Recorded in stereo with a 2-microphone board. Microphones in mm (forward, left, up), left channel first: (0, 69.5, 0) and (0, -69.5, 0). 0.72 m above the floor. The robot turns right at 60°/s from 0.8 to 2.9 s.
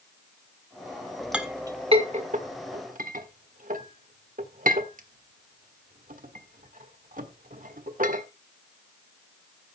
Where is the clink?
5° right (ahead or behind), 1.4 m; by 8.2 s 75° right (ahead or behind), 1.4 m.